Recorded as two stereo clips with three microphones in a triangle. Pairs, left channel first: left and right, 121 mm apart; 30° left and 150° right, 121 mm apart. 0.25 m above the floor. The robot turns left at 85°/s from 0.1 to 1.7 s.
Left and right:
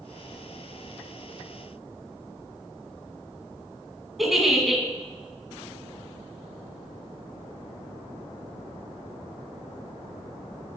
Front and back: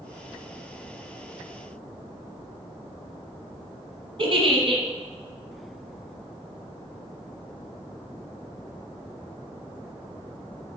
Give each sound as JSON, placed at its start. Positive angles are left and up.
{"t": 4.2, "sound": "a giggle", "azimuth_deg": 180, "distance_m": 1.8}